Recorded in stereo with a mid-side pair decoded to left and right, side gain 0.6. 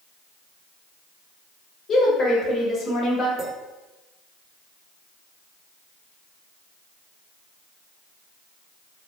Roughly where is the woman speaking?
Ahead left.